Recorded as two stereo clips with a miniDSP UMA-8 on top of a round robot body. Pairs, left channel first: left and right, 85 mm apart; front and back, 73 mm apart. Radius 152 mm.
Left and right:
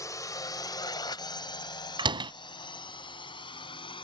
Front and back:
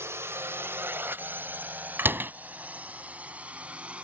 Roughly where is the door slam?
Behind right.